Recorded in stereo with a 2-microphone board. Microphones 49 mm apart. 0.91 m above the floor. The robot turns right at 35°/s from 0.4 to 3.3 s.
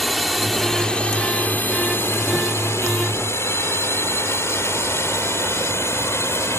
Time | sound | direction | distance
0.0 | a drone | 5° left (ahead or behind) | ?